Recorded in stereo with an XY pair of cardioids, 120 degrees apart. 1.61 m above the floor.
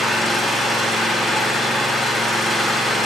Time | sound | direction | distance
0.0 | an engine running | 5° left | 4.5 m